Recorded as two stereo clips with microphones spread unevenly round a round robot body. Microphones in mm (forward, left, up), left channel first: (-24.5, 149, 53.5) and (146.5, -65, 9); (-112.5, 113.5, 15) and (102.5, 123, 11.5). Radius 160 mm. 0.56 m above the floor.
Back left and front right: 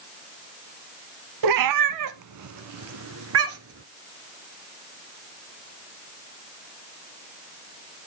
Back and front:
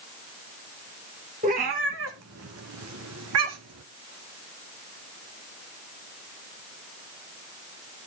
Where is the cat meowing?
60° right, 0.6 m; by 3.8 s 5° right, 1.5 m.